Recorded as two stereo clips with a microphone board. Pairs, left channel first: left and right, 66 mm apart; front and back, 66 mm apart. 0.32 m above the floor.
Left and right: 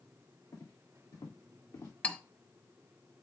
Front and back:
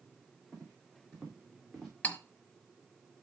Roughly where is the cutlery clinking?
Ahead left.